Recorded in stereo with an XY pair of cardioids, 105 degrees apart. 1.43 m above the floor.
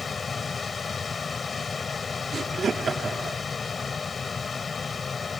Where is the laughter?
40° right.